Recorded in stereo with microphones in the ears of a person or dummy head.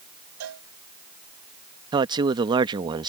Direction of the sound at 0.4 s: 75° right (ahead or behind).